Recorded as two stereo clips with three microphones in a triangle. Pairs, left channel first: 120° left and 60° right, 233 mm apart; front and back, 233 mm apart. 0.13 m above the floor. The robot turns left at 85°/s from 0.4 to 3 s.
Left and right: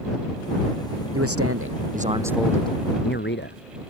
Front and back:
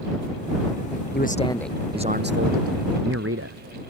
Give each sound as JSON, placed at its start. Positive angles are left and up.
{"t": 1.1, "sound": "a man speaking", "azimuth_deg": -45}